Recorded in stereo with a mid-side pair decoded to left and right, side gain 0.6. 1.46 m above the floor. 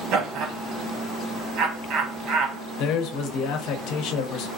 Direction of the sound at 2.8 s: 70° left.